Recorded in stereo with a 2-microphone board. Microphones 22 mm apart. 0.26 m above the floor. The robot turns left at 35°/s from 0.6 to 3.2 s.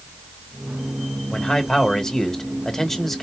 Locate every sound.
1.3 s a man speaking: 75° left, 1.4 m; by 3.2 s 10° left, 1.4 m